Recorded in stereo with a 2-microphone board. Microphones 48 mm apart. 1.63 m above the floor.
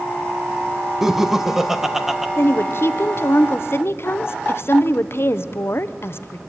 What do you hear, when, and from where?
1.0 s laughter: 5° right (ahead or behind), 1.3 m
2.4 s a woman speaking: 55° left (ahead or behind), 0.9 m